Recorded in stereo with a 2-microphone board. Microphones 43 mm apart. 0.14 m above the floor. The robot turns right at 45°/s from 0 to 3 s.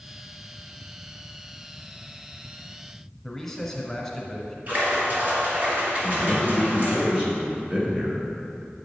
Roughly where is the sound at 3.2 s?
Centre.